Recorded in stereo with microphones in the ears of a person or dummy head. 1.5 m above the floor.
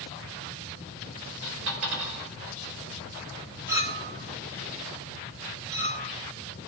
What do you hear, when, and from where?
1.4 s a dropped coin: 75° right (ahead or behind), 5 m
3.7 s a clink: 10° right (ahead or behind), 1.1 m